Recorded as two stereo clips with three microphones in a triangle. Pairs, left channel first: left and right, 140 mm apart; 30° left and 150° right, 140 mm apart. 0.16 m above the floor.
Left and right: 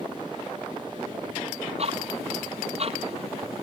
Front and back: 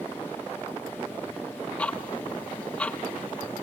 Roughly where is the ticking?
Ahead right.